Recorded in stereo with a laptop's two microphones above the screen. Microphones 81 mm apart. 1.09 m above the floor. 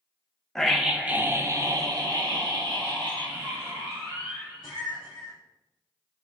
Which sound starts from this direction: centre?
A scream, at 0.6 s.